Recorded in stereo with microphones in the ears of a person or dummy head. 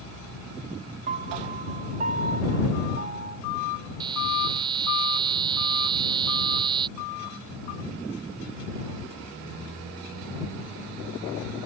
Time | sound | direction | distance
1.1 | a piano | 40° right (ahead or behind) | ?
4.0 | a buzzer | 25° right (ahead or behind) | ?